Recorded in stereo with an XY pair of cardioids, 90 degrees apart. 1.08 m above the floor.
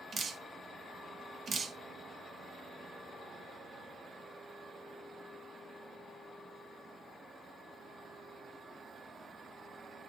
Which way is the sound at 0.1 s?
55° right.